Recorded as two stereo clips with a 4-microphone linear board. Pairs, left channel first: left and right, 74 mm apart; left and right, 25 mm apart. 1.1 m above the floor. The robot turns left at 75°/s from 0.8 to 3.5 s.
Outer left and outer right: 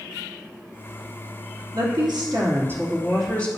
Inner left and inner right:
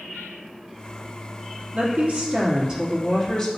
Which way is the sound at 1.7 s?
75° right.